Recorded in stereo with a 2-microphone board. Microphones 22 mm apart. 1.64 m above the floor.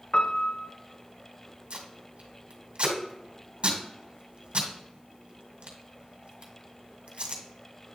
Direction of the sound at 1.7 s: 60° right (ahead or behind).